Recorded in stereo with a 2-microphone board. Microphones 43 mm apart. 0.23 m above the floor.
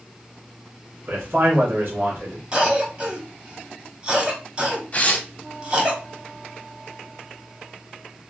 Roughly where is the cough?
Right.